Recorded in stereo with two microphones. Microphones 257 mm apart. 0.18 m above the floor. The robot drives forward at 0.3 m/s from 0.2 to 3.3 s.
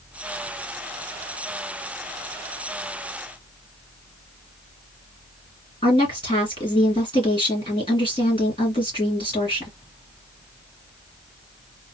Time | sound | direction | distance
5.8 | a woman speaking | 20° left (ahead or behind) | 2.5 m